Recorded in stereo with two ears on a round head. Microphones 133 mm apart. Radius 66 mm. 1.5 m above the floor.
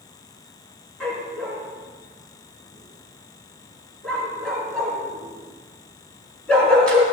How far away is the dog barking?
About 5 m.